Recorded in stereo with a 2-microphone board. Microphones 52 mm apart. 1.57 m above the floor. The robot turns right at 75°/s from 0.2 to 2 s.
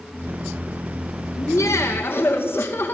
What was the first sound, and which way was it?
Laughter, 85° left.